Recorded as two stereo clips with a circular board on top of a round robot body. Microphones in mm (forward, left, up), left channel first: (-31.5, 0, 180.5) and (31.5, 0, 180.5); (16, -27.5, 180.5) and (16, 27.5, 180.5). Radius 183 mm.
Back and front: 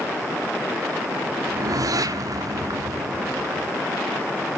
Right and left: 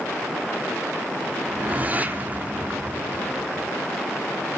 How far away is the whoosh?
About 1.6 m.